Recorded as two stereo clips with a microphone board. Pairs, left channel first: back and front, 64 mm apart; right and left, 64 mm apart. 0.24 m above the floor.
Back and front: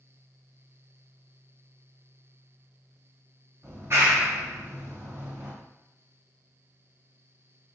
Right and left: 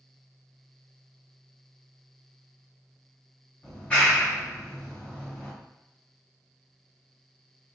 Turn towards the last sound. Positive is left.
turn(degrees=-15)